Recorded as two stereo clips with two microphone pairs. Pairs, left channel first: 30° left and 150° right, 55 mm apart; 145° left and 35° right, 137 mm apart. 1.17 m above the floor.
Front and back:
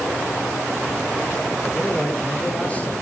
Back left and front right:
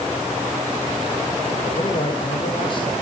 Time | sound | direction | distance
1.6 | a man speaking | 105° left | 5 m